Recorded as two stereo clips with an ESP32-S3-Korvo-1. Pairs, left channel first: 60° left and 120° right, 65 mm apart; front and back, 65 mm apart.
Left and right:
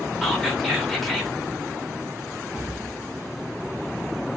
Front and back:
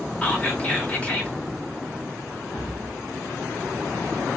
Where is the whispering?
25° right, 0.9 m.